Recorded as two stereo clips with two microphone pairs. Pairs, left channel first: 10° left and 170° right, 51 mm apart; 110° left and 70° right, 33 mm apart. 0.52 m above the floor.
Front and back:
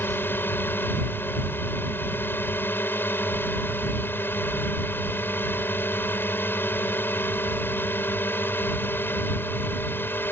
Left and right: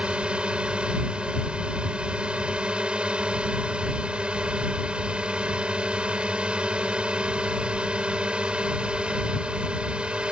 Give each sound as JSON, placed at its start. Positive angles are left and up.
{"t": 0.0, "sound": "a drone", "azimuth_deg": -25}